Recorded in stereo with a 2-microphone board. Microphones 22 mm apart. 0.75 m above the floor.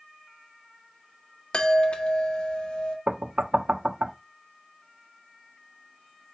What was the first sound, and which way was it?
A chime, 50° left (ahead or behind).